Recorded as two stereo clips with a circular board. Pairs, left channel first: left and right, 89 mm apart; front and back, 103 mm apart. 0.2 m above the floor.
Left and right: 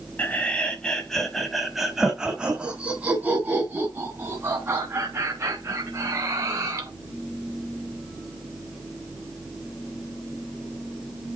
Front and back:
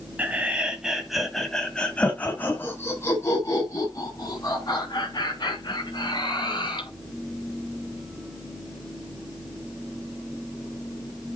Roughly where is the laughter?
Behind left.